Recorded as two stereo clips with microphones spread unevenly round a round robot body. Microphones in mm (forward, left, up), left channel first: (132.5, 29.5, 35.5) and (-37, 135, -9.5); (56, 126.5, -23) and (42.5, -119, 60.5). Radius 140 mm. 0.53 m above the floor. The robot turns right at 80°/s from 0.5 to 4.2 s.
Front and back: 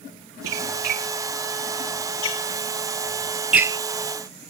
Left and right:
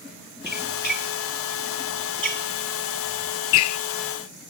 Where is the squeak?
Straight behind; by 3.8 s 85° left.